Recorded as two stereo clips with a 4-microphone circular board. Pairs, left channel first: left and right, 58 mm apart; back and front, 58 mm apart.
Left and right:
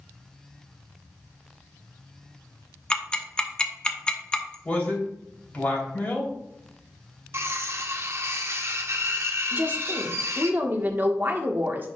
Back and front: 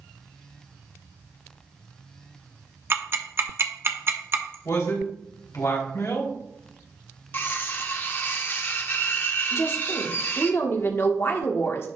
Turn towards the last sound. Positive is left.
turn(degrees=-140)